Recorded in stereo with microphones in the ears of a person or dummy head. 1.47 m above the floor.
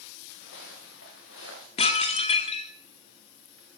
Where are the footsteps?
70° left (ahead or behind), 6.5 m.